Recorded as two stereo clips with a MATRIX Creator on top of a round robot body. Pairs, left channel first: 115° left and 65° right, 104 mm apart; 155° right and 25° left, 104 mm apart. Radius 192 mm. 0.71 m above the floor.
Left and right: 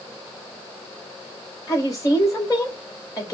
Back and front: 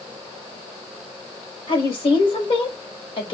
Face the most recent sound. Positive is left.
turn(degrees=170)